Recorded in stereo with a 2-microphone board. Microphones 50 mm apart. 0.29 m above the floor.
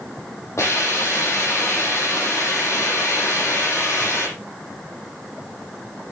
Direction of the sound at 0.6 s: 65° left (ahead or behind).